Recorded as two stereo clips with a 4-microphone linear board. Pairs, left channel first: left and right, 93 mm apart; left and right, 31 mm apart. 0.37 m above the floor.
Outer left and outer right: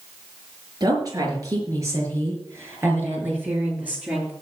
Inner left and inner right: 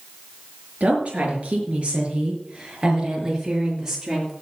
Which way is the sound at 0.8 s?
45° right (ahead or behind).